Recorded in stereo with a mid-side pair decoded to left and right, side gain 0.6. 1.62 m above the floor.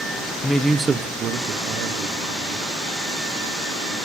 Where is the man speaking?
20° left, 0.5 m; by 2.6 s 75° right, 1.5 m.